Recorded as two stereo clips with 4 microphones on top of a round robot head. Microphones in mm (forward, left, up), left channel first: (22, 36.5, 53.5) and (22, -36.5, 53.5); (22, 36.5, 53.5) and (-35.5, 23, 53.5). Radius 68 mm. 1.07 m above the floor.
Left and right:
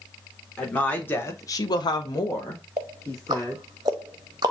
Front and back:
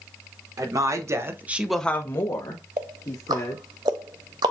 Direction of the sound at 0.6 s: 165° left.